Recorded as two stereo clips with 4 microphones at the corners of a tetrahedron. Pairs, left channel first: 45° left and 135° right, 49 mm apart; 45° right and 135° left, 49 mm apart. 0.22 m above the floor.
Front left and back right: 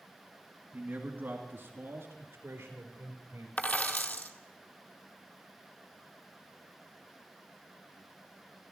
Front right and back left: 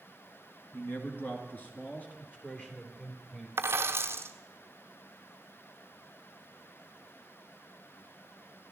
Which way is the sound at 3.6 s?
100° left.